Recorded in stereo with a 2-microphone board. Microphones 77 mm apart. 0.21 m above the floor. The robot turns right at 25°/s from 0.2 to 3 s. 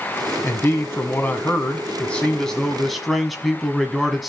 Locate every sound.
0.4 s a man speaking: 120° left, 1.4 m; by 4.3 s straight behind, 1.4 m